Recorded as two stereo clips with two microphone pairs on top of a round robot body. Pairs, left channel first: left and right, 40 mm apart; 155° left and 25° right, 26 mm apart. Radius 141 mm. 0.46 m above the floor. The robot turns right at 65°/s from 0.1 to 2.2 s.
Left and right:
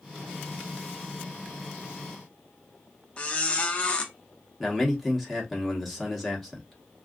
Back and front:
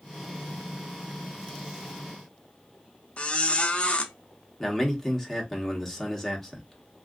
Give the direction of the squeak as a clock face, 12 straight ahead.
7 o'clock.